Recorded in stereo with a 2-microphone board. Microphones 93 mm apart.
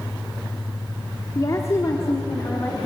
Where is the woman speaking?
35° left (ahead or behind), 2.5 m; by 2.9 s 25° left (ahead or behind), 3 m.